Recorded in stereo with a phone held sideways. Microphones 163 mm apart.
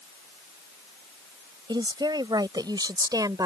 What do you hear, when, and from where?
1.7 s a woman speaking: 25° right (ahead or behind)